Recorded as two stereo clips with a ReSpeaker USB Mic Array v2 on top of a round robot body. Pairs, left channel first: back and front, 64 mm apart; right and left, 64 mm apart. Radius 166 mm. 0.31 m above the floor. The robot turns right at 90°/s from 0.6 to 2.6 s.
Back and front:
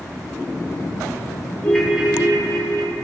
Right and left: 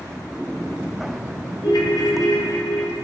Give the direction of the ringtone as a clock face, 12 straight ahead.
4 o'clock.